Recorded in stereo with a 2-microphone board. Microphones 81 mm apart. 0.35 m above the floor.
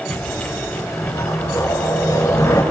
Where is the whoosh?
40° left (ahead or behind), 4 m.